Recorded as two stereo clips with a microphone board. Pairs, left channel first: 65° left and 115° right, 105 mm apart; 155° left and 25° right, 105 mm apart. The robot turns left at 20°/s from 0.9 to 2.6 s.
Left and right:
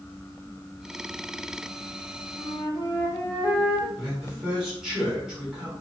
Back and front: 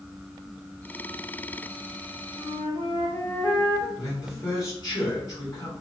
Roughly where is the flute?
Behind left.